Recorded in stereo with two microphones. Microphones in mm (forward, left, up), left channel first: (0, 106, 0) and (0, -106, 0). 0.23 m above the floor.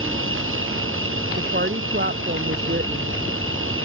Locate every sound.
0.0 s an insect: 75° right (ahead or behind)
1.4 s a woman speaking: 55° right (ahead or behind)